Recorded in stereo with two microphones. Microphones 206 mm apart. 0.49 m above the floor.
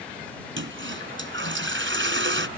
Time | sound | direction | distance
0.6 | a toilet flushing | 70° right (ahead or behind) | ?